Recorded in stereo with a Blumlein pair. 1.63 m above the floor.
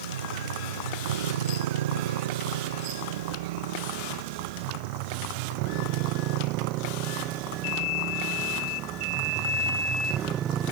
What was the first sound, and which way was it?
A motorcycle, 65° right.